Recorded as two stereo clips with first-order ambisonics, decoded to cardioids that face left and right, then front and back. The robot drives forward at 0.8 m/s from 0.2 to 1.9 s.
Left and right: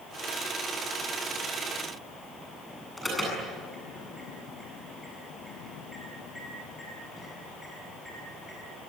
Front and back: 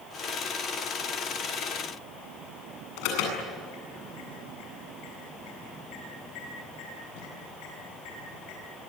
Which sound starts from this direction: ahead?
An alarm, at 3.0 s.